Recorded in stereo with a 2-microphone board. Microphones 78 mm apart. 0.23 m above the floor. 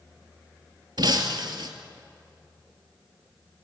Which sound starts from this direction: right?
Breaking glass, at 1.0 s.